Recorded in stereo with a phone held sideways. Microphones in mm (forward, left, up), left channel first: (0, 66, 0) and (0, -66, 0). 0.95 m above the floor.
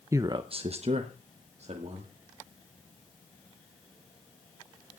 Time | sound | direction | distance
0.1 | a man speaking | 20° right (ahead or behind) | 0.7 m